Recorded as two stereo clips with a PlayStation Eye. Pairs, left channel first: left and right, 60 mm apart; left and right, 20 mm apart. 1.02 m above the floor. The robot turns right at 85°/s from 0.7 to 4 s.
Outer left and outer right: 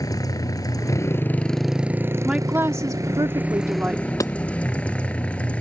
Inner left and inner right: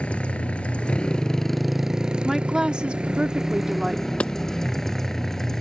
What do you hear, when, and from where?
0.0 s a motorcycle: 100° left; by 5.6 s 20° left
2.2 s a woman speaking: 170° right; by 4.4 s 20° right
4.2 s hammering: 70° left (ahead or behind)